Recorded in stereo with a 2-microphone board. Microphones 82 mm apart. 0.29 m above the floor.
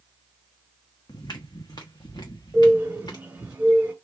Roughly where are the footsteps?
Left.